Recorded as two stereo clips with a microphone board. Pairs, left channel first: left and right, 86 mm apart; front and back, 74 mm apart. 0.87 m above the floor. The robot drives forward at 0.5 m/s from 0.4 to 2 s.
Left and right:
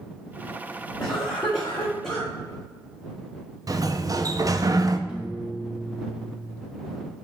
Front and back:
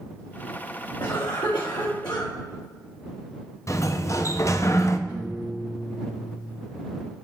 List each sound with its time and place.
1.0 s a cough: 5° left, 1.9 m
3.7 s a sliding door: 45° right, 0.6 m
5.1 s a piano: 15° right, 2 m